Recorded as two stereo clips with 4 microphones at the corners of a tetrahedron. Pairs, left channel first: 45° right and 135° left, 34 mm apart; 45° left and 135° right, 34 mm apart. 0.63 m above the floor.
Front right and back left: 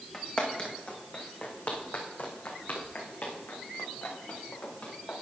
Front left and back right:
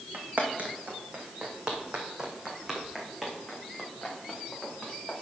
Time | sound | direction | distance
0.1 | footsteps | 105° right | 2 m